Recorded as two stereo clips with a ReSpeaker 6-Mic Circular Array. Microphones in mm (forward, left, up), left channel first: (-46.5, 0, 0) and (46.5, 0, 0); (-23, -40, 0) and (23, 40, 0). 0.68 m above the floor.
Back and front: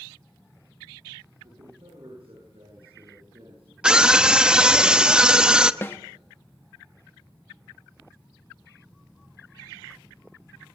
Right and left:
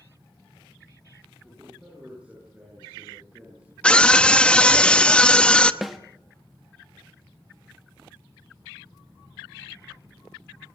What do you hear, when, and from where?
1.4 s a man speaking: 20° right, 8.5 m
3.8 s a scream: 65° right, 0.8 m
5.8 s a snare drum: 145° left, 1.0 m